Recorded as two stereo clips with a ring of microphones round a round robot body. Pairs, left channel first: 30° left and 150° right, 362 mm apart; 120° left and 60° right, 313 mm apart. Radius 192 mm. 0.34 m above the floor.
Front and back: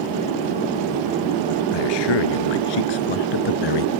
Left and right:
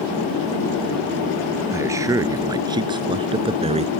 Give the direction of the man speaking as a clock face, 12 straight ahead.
11 o'clock.